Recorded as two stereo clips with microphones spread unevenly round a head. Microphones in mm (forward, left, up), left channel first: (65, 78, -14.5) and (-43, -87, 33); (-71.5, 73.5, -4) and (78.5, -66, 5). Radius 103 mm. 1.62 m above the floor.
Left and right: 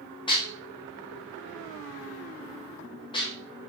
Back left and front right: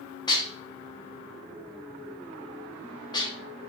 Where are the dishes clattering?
115° left, 0.6 m.